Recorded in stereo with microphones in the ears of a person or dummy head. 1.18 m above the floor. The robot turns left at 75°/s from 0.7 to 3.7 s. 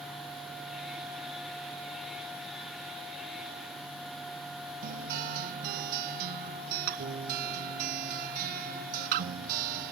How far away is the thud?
No thud in this recording.